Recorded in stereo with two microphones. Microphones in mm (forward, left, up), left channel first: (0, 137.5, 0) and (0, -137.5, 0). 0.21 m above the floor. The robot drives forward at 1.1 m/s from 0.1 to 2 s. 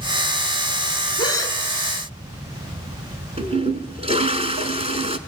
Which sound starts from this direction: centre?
A gasp, at 1.2 s.